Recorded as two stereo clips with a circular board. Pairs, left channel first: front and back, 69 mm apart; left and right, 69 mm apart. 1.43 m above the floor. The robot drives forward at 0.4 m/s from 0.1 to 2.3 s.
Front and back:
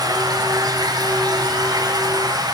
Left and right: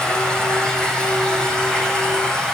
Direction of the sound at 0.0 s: 170° left.